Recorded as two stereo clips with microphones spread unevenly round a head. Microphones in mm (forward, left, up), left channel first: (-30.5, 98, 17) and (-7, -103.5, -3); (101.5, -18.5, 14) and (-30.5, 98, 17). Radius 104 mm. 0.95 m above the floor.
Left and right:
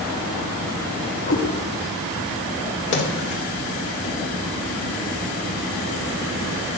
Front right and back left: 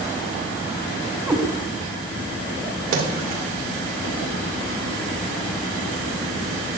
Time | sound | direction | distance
1.3 | a cat meowing | 55° left | 1.6 m
2.9 | a splash | 135° left | 2 m